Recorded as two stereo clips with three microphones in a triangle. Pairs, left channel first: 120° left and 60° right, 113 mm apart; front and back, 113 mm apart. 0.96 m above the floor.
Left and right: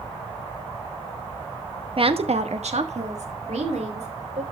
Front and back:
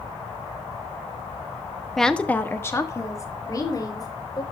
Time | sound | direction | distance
2.0 | a woman speaking | 90° right | 0.9 m